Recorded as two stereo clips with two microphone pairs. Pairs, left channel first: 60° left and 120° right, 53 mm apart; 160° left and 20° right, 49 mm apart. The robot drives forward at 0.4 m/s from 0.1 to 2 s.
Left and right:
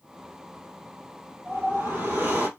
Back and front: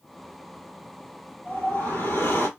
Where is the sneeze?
I don't hear a sneeze.